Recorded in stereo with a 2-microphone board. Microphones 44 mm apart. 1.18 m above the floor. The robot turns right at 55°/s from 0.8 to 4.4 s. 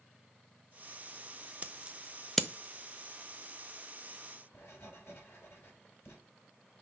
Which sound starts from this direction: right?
Scissors, at 1.6 s.